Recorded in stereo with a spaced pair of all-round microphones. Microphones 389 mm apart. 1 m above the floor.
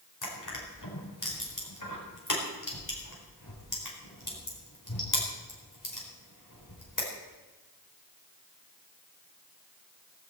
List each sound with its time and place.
0.2 s crushing: 55° left (ahead or behind), 4.5 m